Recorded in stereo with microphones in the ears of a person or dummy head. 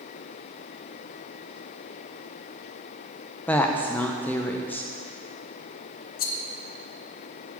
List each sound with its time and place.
3.5 s a woman speaking: 10° left (ahead or behind), 0.7 m
6.2 s a rattle: 40° left (ahead or behind), 0.6 m